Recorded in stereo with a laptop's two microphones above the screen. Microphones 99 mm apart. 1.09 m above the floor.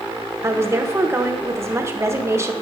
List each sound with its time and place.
0.4 s a woman speaking: 25° right (ahead or behind), 0.7 m